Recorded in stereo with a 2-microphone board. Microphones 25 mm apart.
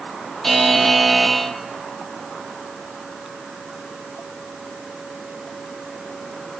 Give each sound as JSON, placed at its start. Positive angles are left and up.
{"t": 0.4, "sound": "a buzzer", "side_deg": 5, "distance_m": 0.9}